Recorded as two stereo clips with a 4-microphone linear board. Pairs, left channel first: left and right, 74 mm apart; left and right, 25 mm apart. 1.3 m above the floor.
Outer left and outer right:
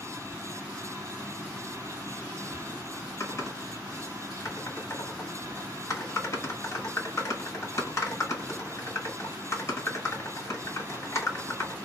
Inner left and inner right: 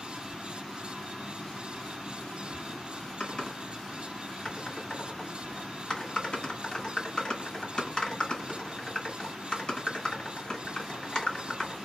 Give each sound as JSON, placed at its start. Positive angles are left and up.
{"t": 3.2, "sound": "typing on a keyboard", "side_deg": 40, "distance_m": 1.5}